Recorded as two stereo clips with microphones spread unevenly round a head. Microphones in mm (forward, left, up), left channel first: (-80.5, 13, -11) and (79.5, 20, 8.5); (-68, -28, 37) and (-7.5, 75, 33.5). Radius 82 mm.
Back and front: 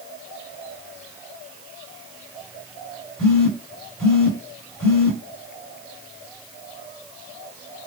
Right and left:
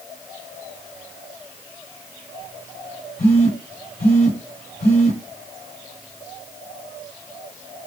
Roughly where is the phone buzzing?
Right.